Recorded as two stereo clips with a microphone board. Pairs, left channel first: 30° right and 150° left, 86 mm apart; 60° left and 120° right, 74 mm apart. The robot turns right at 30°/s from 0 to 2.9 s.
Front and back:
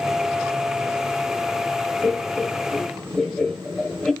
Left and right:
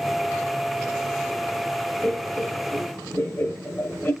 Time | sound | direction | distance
2.0 | laughter | 20° left | 0.9 m